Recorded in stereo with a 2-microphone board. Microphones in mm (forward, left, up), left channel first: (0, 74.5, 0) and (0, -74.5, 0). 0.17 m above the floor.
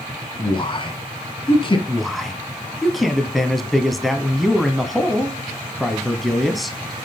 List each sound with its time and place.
0.4 s a man speaking: 35° left (ahead or behind), 1.6 m
1.9 s a man speaking: centre (ahead or behind), 1.1 m